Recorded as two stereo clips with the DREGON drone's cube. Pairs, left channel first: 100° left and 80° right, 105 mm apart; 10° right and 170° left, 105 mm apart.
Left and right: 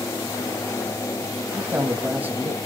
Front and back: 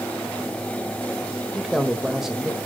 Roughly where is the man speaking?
Behind right.